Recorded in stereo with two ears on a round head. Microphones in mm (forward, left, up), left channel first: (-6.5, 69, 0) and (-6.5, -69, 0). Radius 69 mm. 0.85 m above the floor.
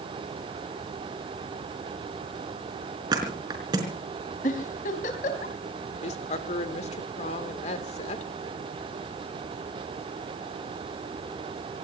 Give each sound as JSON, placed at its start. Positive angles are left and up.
{"t": 3.1, "sound": "a thud", "side_deg": -25, "distance_m": 4.5}
{"t": 4.4, "sound": "a giggle", "side_deg": 55, "distance_m": 3.5}
{"t": 6.0, "sound": "a woman speaking", "side_deg": 45, "distance_m": 2.5}